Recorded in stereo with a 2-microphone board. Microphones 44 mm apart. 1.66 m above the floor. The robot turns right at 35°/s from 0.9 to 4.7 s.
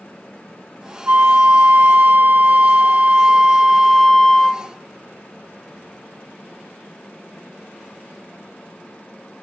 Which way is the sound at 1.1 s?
110° right.